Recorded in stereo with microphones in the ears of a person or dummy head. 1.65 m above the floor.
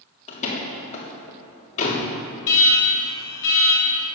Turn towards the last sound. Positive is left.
turn(degrees=65)  # may be behind; listen again after turning